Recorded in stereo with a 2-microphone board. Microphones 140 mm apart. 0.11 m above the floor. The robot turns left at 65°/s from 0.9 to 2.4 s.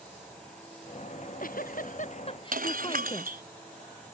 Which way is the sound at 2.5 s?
85° right.